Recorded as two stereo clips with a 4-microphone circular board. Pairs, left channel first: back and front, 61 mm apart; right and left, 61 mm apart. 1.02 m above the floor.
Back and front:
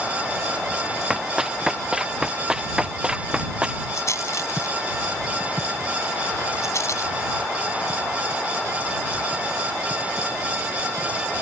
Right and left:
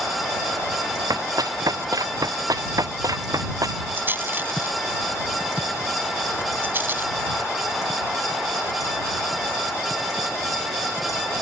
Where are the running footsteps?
80° left; by 3.8 s 75° left.